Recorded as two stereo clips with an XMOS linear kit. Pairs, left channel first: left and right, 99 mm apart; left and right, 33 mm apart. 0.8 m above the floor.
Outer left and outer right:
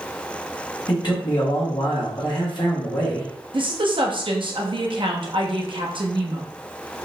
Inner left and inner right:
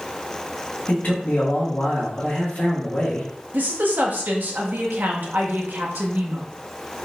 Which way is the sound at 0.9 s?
50° left (ahead or behind).